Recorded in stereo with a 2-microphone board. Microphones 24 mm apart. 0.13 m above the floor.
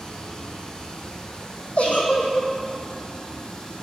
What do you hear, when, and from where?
0.0 s running water: 40° left (ahead or behind), 0.9 m
1.8 s a giggle: 80° left, 1.0 m